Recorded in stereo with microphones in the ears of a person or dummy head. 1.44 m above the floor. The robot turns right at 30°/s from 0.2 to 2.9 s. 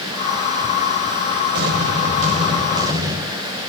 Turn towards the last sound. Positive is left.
turn(degrees=-20)